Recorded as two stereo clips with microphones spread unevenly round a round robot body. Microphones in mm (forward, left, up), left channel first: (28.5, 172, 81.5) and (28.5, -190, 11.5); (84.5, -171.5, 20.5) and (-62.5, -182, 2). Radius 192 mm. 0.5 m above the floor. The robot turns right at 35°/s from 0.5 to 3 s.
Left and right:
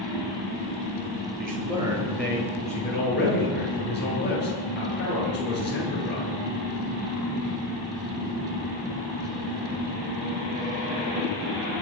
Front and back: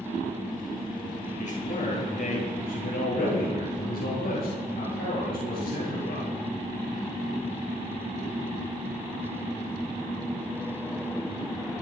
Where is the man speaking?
25° right, 8 m; by 6.3 s 30° left, 8 m.